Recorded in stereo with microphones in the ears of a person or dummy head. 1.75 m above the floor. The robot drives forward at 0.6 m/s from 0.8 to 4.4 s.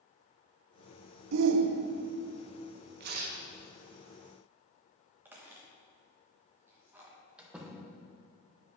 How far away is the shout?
About 0.5 m.